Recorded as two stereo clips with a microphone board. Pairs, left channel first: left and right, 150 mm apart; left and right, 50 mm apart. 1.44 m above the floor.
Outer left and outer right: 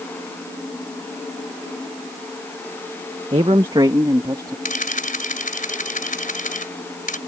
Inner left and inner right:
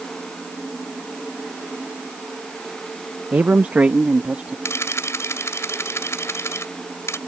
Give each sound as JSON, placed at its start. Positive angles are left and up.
{"t": 3.3, "sound": "a man speaking", "side_deg": -35}
{"t": 4.7, "sound": "a camera shutter", "side_deg": 60}